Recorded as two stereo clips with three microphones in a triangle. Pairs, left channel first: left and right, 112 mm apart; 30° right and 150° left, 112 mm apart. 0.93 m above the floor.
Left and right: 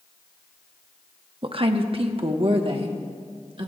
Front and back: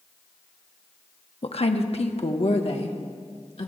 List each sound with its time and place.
1.4 s a woman speaking: 55° right, 1.1 m